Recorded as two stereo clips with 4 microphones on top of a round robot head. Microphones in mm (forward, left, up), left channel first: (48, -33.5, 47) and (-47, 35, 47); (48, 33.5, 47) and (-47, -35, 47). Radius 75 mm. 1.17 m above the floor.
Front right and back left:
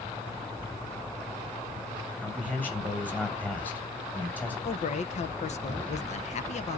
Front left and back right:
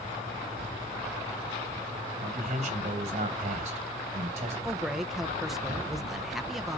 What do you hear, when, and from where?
2.2 s a man speaking: 110° right, 6.5 m
4.6 s a man speaking: 55° right, 1.0 m